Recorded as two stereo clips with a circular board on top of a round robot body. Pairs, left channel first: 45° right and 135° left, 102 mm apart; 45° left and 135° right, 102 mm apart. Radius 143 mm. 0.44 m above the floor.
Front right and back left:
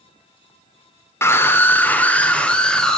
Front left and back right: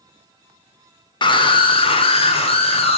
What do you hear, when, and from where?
1.2 s a scream: 15° left, 2 m; by 3.0 s 40° left, 3 m